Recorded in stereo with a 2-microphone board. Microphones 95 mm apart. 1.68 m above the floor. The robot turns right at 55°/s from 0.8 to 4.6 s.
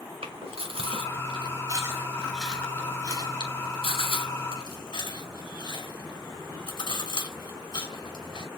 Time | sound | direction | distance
0.2 | chewing | 85° right | 5.5 m